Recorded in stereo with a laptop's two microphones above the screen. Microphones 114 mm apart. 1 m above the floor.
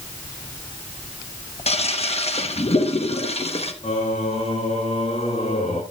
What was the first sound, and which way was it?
A toilet flushing, 65° left (ahead or behind).